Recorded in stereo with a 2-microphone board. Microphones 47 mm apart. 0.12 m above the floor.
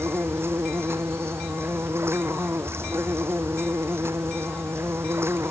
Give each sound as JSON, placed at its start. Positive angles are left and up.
{"t": 0.0, "sound": "an insect", "side_deg": -70}